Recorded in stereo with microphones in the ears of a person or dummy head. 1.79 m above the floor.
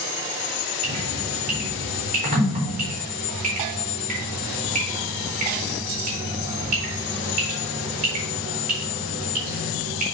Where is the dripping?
40° right (ahead or behind), 4 m.